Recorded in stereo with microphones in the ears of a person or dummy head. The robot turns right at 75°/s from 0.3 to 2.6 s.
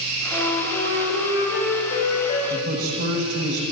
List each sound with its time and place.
0.3 s a flute: 15° right, 3.5 m; by 2.4 s 145° left, 3.5 m
2.5 s a man speaking: 65° right (ahead or behind), 1.4 m; by 3.6 s 55° right (ahead or behind), 1.4 m